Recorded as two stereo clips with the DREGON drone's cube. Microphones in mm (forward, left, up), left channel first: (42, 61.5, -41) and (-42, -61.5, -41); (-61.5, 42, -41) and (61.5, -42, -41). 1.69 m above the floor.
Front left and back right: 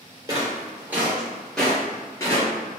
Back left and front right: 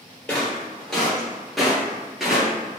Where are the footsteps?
135° right, 1.8 m; by 2.8 s 50° left, 1.9 m.